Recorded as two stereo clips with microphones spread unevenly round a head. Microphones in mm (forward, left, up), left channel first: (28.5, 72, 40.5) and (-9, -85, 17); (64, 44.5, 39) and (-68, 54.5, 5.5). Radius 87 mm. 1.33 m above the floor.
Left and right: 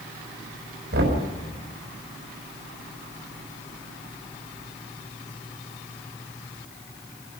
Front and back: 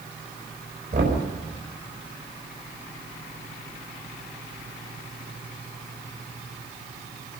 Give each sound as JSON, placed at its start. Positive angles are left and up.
{"t": 0.9, "sound": "knocking", "azimuth_deg": -135, "distance_m": 5.5}